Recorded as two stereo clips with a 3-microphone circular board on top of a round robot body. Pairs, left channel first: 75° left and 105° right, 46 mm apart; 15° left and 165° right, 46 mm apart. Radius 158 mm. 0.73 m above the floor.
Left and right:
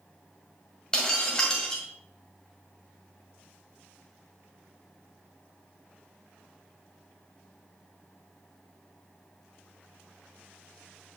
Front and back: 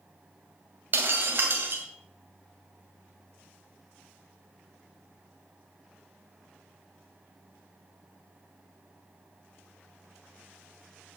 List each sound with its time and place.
0.9 s breaking glass: 150° left, 1.9 m